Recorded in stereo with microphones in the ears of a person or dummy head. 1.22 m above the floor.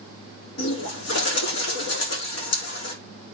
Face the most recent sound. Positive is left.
turn(degrees=75)  # may be behind; listen again after turning